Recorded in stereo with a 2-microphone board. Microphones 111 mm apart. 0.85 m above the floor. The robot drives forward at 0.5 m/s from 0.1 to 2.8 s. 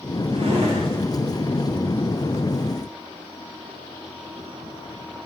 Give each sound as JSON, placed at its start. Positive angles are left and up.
{"t": 0.3, "sound": "a drawer", "side_deg": -85, "distance_m": 2.0}